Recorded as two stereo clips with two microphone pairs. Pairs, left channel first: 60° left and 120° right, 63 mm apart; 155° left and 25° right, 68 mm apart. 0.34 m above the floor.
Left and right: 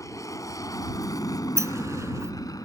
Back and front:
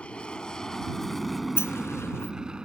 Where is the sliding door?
155° right.